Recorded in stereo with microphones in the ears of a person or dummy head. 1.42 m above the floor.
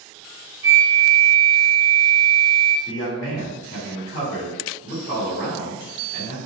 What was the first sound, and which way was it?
A flute, 30° right (ahead or behind).